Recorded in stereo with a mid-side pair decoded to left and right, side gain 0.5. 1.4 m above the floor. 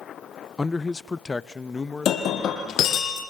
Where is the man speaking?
25° left, 0.6 m.